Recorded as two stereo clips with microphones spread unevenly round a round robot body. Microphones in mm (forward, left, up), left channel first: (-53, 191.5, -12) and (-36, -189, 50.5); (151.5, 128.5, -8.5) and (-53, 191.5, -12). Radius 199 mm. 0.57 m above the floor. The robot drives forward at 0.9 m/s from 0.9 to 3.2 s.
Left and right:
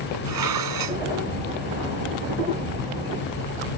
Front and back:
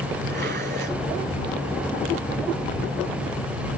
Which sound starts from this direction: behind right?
Dishes clattering, at 0.2 s.